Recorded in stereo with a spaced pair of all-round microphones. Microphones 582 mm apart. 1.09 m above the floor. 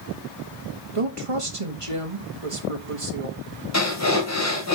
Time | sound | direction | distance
0.9 | a woman speaking | 60° right (ahead or behind) | 1.7 m
3.7 | breathing | 25° left (ahead or behind) | 2.5 m